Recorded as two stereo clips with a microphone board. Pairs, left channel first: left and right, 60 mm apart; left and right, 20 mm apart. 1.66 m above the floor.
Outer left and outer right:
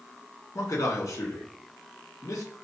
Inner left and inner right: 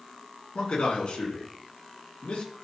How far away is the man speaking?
About 1.7 m.